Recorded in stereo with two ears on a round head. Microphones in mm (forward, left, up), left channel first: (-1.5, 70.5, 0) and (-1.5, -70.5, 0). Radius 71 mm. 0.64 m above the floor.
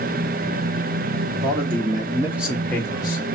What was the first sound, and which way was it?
A man speaking, 40° right (ahead or behind).